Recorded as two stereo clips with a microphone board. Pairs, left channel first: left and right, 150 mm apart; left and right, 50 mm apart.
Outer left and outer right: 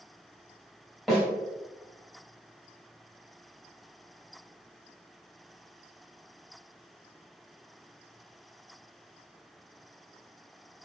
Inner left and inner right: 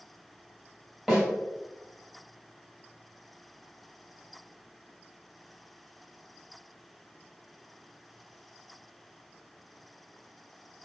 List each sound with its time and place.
1.1 s a snare drum: centre (ahead or behind), 1.9 m